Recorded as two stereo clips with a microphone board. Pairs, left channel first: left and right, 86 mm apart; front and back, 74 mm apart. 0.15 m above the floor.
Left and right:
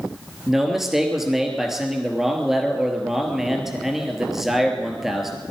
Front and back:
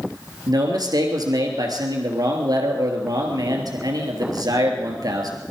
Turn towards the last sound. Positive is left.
turn(degrees=-175)